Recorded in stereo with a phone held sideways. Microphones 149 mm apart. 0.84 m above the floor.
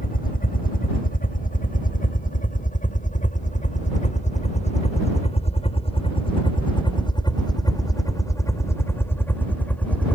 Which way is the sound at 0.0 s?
70° left (ahead or behind).